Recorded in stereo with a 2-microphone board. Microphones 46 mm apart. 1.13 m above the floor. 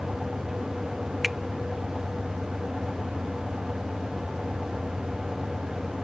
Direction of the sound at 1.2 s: Centre (ahead or behind).